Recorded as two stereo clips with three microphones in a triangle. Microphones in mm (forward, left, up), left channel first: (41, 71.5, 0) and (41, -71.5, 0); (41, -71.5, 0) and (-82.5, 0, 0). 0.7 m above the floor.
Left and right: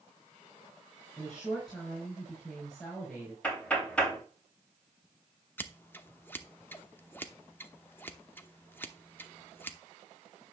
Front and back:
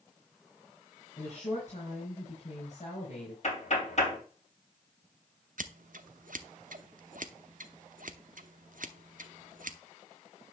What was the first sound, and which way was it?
A woman speaking, 5° left.